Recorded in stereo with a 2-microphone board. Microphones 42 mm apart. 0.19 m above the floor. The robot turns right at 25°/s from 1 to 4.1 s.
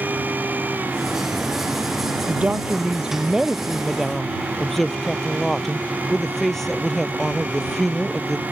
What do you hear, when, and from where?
2.3 s a woman speaking: 40° right; by 8.4 s 5° left